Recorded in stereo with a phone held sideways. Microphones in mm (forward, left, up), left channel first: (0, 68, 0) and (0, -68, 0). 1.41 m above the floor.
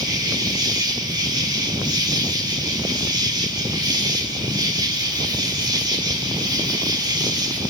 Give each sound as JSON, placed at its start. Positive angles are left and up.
{"t": 0.0, "sound": "an insect", "side_deg": -30, "distance_m": 1.4}